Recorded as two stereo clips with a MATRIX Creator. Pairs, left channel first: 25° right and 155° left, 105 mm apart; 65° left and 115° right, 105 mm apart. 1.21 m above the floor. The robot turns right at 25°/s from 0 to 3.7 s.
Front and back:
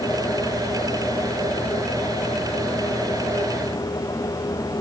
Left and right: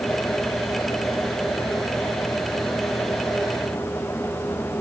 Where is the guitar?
No guitar in this recording.